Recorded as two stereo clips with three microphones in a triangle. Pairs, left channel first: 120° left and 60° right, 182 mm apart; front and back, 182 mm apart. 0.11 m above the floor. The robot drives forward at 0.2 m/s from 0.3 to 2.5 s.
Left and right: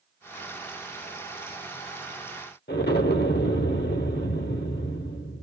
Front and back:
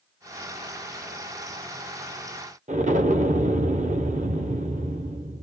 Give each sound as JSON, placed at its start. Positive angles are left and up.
{"t": 2.7, "sound": "an explosion", "azimuth_deg": 135, "distance_m": 0.7}